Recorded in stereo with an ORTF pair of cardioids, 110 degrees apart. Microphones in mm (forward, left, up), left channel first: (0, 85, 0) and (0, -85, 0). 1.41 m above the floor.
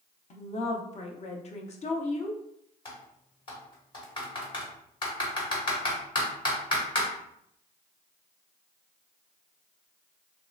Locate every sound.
0.3 s a woman speaking: 40° left, 0.8 m
2.9 s typing on a keyboard: 30° left, 1.4 m